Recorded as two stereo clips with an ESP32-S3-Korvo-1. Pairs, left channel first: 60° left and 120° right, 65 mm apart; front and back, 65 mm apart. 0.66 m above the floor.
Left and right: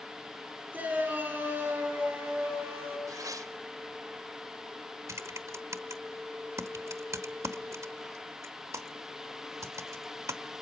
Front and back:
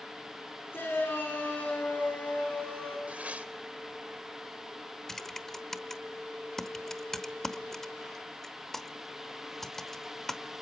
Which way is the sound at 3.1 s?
110° right.